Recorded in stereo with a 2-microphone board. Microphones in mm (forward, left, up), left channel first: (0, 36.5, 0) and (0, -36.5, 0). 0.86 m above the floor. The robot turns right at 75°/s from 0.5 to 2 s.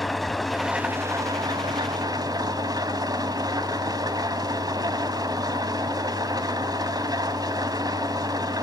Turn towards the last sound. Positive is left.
turn(degrees=-70)